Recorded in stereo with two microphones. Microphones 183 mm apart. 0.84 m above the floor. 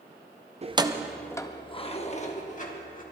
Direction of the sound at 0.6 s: 35° right (ahead or behind).